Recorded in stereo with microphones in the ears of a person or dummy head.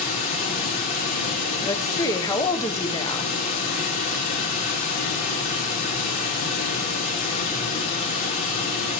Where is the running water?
40° left (ahead or behind), 2 m.